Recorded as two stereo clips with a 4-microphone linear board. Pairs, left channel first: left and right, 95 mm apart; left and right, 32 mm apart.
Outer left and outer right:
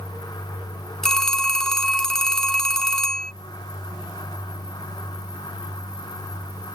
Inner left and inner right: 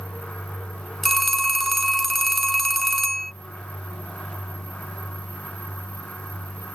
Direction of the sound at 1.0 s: 5° left (ahead or behind).